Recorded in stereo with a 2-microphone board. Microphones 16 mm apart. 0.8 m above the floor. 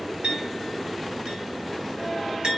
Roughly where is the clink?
Right.